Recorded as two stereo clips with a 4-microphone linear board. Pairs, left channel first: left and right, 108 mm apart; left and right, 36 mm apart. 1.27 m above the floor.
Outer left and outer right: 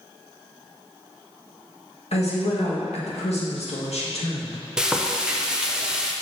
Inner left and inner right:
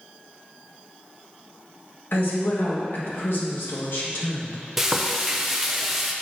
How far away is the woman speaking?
About 1.8 m.